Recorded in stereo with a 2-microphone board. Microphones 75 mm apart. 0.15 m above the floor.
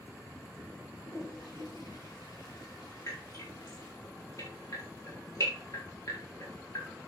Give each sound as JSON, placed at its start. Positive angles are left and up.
{"t": 0.9, "sound": "a toilet flushing", "side_deg": 55, "distance_m": 5.0}
{"t": 3.1, "sound": "dripping", "side_deg": 45, "distance_m": 8.5}